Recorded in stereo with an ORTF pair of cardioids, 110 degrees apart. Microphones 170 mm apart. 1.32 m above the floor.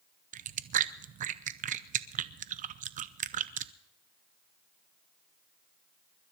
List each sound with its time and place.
0.3 s chewing: 50° right, 0.7 m